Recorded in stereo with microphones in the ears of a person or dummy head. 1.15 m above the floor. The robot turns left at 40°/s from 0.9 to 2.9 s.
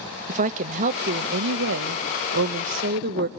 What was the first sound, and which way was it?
A woman speaking, 50° right.